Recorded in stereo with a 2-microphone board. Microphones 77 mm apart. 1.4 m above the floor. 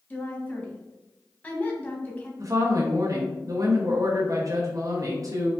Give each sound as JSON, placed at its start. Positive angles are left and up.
{"t": 0.1, "sound": "a woman speaking", "side_deg": 20, "distance_m": 1.0}
{"t": 2.4, "sound": "a woman speaking", "side_deg": -45, "distance_m": 0.7}